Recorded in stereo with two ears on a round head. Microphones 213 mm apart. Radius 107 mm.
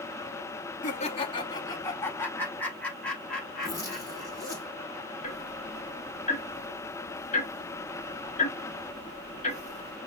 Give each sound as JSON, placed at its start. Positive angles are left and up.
{"t": 0.8, "sound": "laughter", "side_deg": 30, "distance_m": 0.8}
{"t": 3.6, "sound": "a zipper", "side_deg": 15, "distance_m": 4.5}
{"t": 5.2, "sound": "ticking", "side_deg": 30, "distance_m": 1.3}